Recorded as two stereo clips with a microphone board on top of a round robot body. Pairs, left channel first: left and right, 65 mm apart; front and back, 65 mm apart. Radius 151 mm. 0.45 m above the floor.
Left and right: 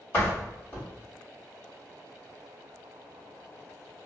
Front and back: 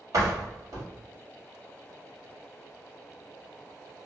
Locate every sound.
0.1 s a door slam: 150° left, 1.6 m